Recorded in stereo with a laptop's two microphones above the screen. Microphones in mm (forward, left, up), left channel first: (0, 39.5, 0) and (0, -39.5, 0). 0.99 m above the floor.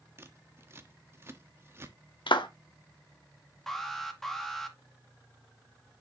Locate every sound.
0.2 s scissors: 30° right (ahead or behind), 1.2 m
2.3 s a clap: 80° left, 1.3 m
3.7 s an alarm: 5° left (ahead or behind), 1.9 m